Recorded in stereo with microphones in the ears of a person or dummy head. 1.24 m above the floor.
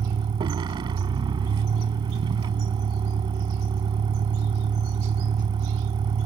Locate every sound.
0.0 s a vehicle: 25° right (ahead or behind)